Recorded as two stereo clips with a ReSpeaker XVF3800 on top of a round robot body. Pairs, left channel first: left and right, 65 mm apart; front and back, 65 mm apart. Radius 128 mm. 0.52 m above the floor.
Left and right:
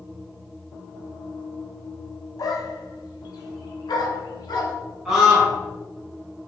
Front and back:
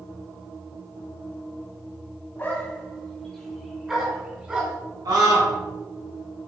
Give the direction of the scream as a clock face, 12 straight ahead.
6 o'clock.